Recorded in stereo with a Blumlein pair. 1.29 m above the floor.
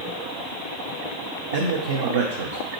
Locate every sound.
1.5 s a man speaking: 60° right, 0.6 m